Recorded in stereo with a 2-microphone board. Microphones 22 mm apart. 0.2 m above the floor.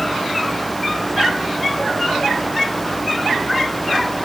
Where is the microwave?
I don't hear a microwave.